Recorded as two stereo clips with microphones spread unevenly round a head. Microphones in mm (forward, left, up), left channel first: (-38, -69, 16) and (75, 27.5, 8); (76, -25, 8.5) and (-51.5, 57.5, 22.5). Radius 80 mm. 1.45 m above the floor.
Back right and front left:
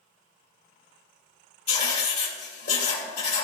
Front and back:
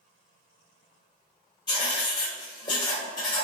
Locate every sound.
1.7 s writing: 100° right, 2.5 m